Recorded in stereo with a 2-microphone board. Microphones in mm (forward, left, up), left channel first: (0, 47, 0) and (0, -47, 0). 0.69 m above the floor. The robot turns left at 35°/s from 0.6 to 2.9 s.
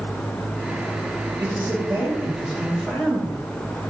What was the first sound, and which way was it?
A man speaking, 140° right.